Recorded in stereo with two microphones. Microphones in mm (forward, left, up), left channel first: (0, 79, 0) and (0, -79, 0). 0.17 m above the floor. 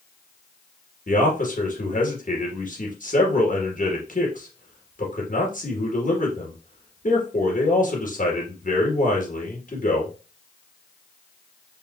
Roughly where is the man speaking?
Left.